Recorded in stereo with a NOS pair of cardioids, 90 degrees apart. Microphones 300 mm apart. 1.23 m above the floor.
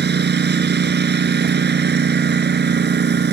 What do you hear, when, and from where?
0.0 s a lawn mower: 40° right